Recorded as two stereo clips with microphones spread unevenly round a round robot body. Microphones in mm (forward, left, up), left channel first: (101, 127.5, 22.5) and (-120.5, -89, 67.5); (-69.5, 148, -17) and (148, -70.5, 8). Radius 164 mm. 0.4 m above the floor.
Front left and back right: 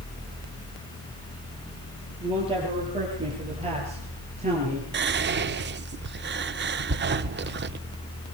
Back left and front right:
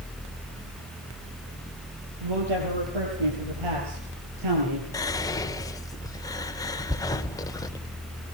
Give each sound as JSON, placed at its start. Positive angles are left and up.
{"t": 2.2, "sound": "a man speaking", "azimuth_deg": -60, "distance_m": 9.0}
{"t": 4.9, "sound": "whispering", "azimuth_deg": -165, "distance_m": 0.9}